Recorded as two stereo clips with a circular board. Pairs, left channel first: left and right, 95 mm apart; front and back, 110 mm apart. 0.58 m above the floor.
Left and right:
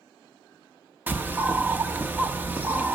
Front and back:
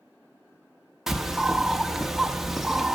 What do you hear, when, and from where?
1.1 s a bird: 95° right, 0.8 m